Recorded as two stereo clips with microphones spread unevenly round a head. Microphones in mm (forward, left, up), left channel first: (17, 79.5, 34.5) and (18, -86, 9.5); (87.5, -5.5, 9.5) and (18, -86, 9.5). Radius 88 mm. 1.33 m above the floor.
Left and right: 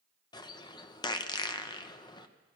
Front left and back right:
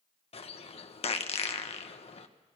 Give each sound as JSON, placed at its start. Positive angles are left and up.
{"t": 0.3, "sound": "a bird", "azimuth_deg": 25, "distance_m": 1.1}